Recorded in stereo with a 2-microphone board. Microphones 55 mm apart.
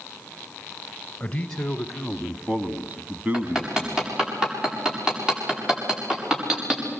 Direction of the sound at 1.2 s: 15° left (ahead or behind).